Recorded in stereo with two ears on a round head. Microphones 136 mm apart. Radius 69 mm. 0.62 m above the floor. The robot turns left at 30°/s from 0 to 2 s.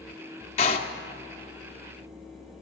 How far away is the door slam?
About 0.8 m.